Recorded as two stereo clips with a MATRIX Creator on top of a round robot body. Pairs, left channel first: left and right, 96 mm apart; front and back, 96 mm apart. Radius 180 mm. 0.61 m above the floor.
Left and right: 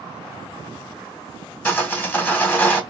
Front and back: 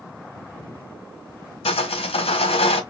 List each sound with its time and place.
1.6 s sawing: 20° left, 1.4 m